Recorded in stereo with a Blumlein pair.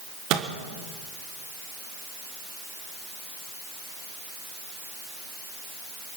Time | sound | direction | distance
0.3 | a microwave | 40° right | 1.5 m